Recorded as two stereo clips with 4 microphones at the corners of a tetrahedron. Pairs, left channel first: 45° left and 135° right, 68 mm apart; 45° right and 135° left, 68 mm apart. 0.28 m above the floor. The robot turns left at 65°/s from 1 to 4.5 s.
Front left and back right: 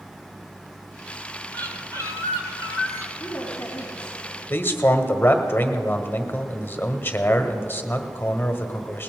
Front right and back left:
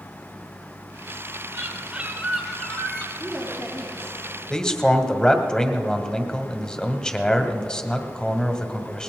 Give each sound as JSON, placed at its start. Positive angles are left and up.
{"t": 1.5, "sound": "a bird", "azimuth_deg": 105, "distance_m": 2.0}
{"t": 3.2, "sound": "a woman speaking", "azimuth_deg": 35, "distance_m": 3.0}
{"t": 4.5, "sound": "a man speaking", "azimuth_deg": 25, "distance_m": 1.2}